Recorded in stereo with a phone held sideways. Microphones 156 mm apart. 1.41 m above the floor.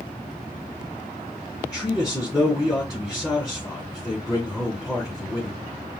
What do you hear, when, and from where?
1.6 s a man speaking: 5° right (ahead or behind), 2.5 m